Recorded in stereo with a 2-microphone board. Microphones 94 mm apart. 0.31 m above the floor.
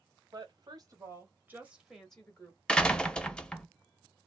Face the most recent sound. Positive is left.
turn(degrees=10)  # may be behind; listen again after turning